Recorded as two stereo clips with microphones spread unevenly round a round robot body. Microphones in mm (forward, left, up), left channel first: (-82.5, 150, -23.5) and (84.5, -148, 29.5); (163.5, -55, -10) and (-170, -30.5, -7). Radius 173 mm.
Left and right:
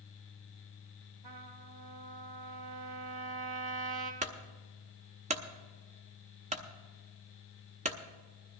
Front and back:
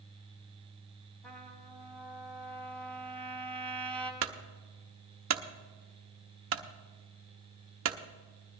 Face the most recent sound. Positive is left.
turn(degrees=-135)